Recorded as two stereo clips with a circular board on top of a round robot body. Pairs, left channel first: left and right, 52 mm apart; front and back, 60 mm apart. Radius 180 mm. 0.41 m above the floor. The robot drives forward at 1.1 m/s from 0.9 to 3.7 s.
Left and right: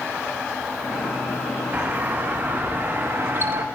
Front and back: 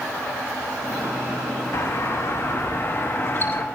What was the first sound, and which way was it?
A doorbell, 35° right.